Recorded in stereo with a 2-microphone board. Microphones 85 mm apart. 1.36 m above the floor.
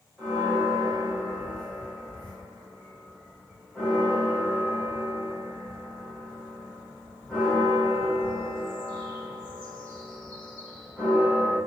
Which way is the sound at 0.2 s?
20° left (ahead or behind).